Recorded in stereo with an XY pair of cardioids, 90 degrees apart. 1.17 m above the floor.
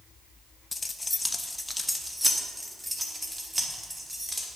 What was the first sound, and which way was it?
Keys jangling, 30° left.